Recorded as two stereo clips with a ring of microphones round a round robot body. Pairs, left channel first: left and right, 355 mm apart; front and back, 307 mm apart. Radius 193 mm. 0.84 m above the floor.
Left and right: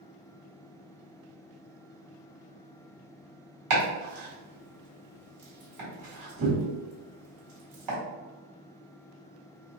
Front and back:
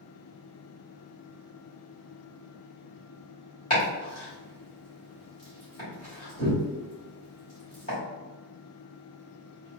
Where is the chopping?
65° right, 1.8 m.